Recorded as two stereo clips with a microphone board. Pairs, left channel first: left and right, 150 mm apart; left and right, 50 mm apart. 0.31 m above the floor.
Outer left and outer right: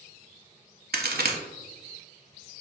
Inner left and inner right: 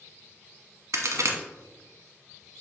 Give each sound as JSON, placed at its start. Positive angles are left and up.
{"t": 0.9, "sound": "a crack", "side_deg": -85, "distance_m": 0.6}